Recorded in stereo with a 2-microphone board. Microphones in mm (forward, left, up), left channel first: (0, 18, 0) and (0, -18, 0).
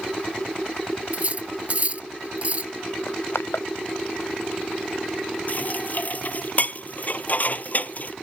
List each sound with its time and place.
1.1 s cutlery clinking: 40° right (ahead or behind)
3.1 s crushing: 85° left
5.5 s dishes clattering: 50° left (ahead or behind)